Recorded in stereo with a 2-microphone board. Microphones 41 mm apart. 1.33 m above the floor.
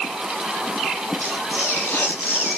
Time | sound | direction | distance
1.2 | tearing paper | 65° left (ahead or behind) | 8 m